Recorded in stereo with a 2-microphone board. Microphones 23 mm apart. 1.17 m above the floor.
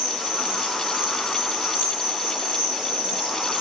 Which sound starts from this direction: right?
An insect, at 0.0 s.